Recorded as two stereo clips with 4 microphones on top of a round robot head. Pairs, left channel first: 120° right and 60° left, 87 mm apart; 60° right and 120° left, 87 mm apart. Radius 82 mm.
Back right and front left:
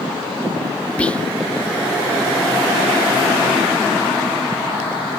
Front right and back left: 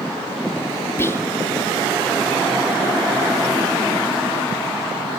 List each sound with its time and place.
1.0 s whispering: 60° right, 1.2 m